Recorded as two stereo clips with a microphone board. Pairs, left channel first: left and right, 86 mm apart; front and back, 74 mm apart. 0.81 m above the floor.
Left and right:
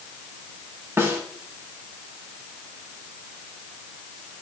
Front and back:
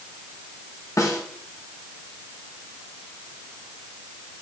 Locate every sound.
1.0 s a snare drum: 35° right, 1.5 m